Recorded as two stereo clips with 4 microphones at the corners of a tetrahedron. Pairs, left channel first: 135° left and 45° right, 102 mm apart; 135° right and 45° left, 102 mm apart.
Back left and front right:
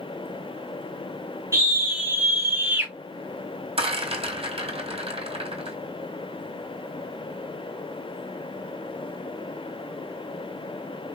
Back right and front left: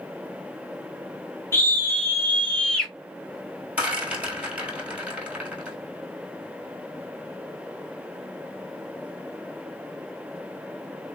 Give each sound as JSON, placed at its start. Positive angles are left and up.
{"t": 1.5, "sound": "a scream", "azimuth_deg": -85, "distance_m": 1.8}
{"t": 3.8, "sound": "a rattle", "azimuth_deg": -35, "distance_m": 1.3}